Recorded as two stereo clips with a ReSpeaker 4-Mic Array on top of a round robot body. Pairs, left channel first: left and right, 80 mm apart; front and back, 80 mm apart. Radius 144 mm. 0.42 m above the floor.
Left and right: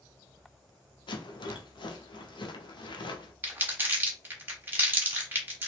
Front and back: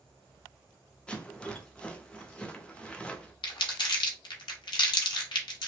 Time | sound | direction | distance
1.1 | a rattle | 80° left | 0.7 m
3.4 | crumpling | 25° right | 0.9 m